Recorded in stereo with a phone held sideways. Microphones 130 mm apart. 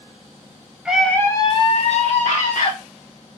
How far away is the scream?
About 0.7 m.